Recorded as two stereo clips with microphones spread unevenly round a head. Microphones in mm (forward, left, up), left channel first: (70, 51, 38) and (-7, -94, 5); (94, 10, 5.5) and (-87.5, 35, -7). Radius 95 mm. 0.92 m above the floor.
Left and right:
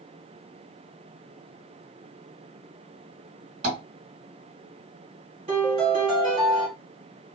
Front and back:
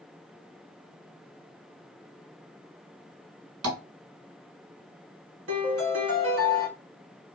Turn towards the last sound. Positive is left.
turn(degrees=-175)